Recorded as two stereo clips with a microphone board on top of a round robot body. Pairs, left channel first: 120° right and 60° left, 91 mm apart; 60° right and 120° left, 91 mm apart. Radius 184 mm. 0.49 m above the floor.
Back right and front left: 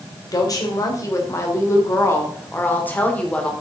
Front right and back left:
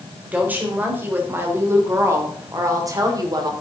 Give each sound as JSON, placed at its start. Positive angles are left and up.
{"t": 0.3, "sound": "a woman speaking", "azimuth_deg": -165, "distance_m": 3.0}